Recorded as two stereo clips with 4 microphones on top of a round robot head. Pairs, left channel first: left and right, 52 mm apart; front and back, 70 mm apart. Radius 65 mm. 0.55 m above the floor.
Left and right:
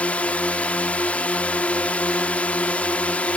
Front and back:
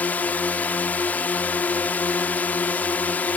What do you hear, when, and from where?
0.0 s a drone: 50° left